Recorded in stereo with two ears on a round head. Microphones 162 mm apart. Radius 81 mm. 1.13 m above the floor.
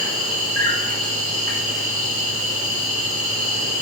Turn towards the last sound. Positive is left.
turn(degrees=-45)  # may be behind; listen again after turning